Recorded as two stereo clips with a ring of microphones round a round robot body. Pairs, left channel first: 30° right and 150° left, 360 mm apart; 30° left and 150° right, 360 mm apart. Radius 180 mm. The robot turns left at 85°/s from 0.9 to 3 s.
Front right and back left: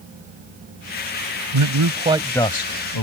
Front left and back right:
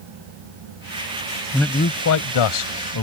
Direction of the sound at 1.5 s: 125° left.